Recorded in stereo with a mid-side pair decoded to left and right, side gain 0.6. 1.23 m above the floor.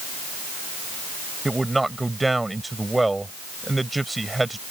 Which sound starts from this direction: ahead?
A man speaking, at 1.4 s.